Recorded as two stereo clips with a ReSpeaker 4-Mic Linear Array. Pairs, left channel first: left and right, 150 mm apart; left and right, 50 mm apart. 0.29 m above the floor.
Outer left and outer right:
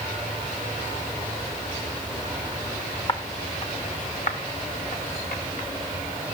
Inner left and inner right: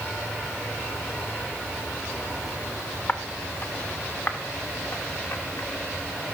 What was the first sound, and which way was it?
Footsteps, 35° left (ahead or behind).